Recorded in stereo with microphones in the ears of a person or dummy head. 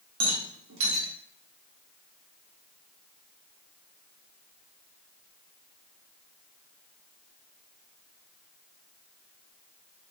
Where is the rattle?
70° right (ahead or behind), 1.1 m.